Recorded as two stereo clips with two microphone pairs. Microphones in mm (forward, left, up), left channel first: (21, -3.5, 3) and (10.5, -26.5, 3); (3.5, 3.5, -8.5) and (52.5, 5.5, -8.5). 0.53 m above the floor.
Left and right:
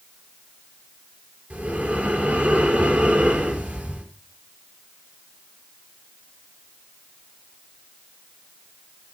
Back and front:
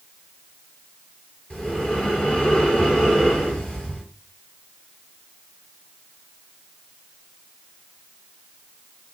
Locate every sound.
1.5 s breathing: 105° right, 6.5 m